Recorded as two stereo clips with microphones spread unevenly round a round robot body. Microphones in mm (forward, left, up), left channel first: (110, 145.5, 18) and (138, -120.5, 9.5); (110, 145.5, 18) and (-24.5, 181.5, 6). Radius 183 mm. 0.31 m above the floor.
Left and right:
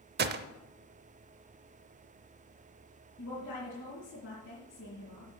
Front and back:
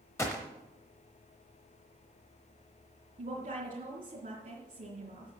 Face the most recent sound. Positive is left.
turn(degrees=150)